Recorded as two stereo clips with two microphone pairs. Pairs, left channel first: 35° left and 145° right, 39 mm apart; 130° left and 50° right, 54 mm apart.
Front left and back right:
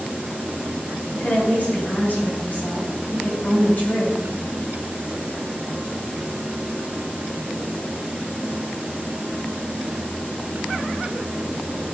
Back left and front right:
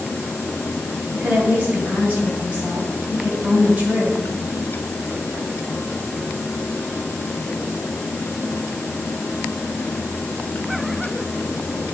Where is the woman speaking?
15° left, 2 m.